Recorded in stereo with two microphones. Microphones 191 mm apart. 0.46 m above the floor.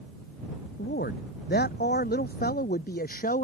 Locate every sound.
0.8 s a man speaking: 60° left (ahead or behind); by 3.4 s 50° left (ahead or behind)